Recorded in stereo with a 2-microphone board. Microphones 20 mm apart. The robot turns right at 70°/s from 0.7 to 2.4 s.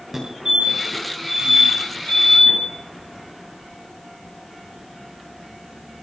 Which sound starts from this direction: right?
A fire alarm, at 0.1 s.